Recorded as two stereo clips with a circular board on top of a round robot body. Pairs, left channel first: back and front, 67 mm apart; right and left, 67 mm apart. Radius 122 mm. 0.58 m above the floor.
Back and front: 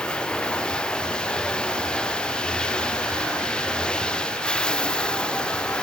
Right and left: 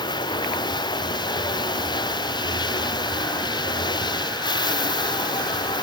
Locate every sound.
0.0 s running water: 100° right